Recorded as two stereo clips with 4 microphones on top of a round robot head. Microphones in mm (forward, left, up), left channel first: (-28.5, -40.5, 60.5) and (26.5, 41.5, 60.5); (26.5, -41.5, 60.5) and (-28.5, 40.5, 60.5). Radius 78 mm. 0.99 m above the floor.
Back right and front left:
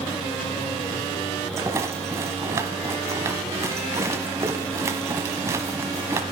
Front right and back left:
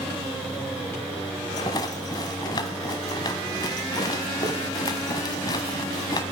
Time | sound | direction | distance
1.6 | a rattle | 5° right | 1.2 m